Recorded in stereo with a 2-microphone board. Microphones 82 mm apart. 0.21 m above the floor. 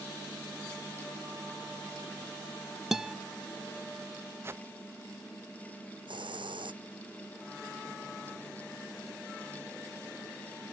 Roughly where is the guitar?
Centre.